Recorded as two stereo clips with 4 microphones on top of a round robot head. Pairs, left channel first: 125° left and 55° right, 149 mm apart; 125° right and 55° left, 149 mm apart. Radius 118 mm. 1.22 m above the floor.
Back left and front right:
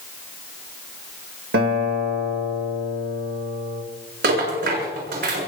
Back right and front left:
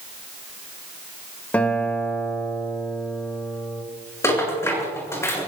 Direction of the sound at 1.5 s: 45° right.